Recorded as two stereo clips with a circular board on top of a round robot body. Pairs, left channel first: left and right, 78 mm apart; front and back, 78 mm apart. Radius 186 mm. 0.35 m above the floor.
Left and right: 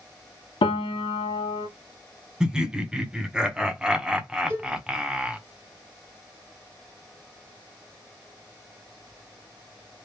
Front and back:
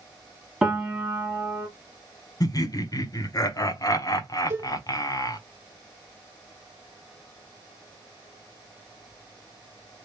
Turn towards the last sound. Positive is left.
turn(degrees=-140)